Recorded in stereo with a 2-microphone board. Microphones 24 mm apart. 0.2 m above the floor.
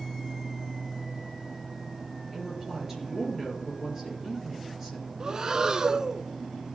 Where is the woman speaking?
15° right (ahead or behind), 4 m.